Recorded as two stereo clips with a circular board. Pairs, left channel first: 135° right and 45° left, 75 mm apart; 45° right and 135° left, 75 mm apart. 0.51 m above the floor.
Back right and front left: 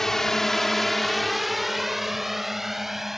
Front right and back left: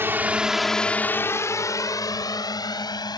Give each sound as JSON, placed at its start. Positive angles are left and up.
{"t": 0.0, "sound": "a drone", "azimuth_deg": 145}